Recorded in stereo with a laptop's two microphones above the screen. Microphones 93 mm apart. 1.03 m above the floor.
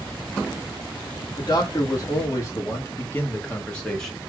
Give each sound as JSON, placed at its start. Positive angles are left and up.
{"t": 1.4, "sound": "a man speaking", "side_deg": 40, "distance_m": 2.5}